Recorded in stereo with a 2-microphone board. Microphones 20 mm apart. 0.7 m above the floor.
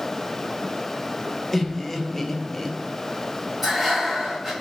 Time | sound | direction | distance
1.5 | laughter | 15° left (ahead or behind) | 0.5 m
3.6 | breathing | 10° right (ahead or behind) | 1.5 m